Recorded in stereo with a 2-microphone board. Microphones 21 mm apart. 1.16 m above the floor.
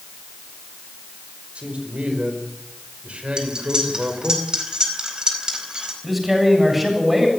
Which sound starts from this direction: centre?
A man speaking, at 6.0 s.